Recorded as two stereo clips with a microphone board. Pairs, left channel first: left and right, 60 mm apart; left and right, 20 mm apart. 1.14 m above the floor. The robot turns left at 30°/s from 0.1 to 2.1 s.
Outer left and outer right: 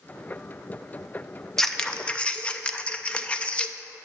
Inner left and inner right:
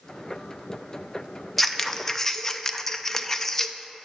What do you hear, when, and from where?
1.6 s scissors: 5° left (ahead or behind), 0.5 m; by 3.8 s 20° left (ahead or behind), 0.5 m